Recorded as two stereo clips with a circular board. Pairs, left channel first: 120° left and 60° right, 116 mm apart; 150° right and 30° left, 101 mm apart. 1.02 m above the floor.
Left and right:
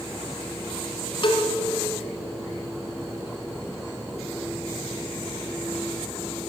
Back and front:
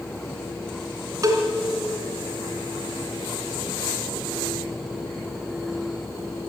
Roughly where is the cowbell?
Left.